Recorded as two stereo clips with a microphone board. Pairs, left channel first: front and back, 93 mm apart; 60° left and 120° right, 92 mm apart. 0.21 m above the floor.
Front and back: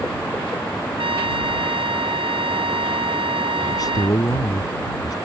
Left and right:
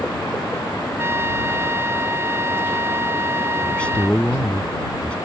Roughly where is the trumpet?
Behind.